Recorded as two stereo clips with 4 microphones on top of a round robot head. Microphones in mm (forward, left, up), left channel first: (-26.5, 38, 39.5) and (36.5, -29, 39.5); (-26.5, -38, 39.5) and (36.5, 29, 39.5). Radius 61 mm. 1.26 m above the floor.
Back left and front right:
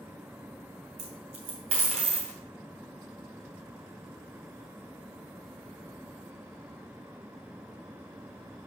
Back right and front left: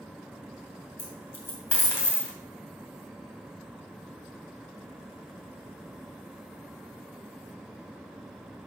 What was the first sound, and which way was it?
A dropped coin, 70° right.